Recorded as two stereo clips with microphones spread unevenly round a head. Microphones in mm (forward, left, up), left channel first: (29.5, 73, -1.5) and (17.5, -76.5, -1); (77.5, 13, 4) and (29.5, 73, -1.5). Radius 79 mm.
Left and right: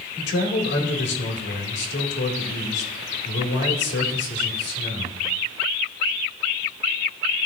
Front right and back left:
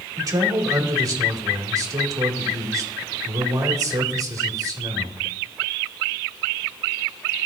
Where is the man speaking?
95° left, 2.0 m.